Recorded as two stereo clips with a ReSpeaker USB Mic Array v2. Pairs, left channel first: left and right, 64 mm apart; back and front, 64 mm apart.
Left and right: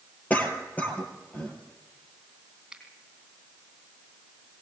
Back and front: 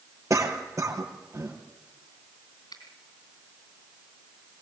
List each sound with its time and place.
0.3 s a cough: 30° left, 3.5 m
2.7 s a finger snap: 170° right, 3 m